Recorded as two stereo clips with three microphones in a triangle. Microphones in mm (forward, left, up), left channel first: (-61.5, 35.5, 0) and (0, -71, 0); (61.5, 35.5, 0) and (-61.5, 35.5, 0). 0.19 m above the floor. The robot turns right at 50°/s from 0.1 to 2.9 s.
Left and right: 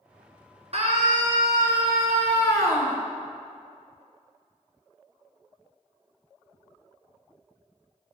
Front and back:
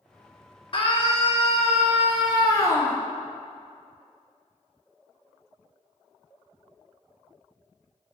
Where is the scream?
35° right, 2 m; by 3.0 s 75° left, 2 m.